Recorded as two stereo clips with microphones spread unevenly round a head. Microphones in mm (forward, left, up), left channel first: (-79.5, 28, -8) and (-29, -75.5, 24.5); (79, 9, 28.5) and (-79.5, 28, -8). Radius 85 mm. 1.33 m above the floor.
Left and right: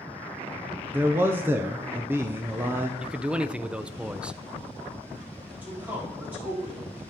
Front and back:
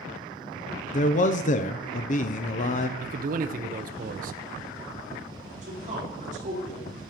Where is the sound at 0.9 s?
20° left, 0.5 m.